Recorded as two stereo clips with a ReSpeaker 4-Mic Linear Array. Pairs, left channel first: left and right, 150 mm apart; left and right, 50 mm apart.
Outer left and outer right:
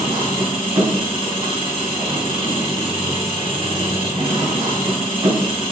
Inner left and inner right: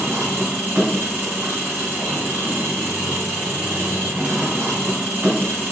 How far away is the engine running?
About 3.5 m.